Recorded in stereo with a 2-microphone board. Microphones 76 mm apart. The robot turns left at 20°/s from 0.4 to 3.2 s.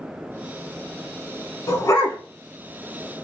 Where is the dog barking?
50° left (ahead or behind), 1.0 m; by 2.2 s 40° left (ahead or behind), 1.0 m.